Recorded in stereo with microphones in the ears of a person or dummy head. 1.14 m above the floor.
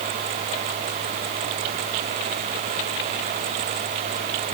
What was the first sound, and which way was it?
Only background noise.